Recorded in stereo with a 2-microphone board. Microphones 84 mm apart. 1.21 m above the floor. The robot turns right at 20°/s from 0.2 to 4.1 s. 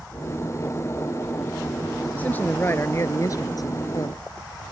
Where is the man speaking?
20° left; by 4.2 s 55° left.